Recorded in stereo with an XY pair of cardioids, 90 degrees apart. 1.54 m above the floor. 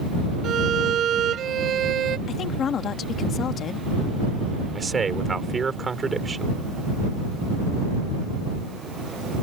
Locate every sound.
0.4 s a violin: 65° right
2.3 s a woman speaking: 70° left
4.8 s a man speaking: 35° right